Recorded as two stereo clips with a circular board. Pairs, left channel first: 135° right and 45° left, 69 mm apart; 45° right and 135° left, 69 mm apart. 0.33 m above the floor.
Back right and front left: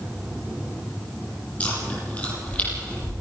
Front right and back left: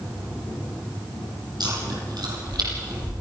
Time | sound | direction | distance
1.6 | chewing | 155° left | 6 m